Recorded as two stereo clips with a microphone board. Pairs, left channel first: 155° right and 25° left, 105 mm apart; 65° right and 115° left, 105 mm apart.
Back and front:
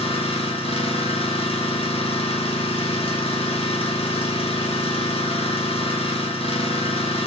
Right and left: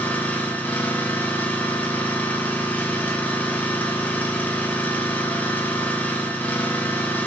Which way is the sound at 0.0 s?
140° right.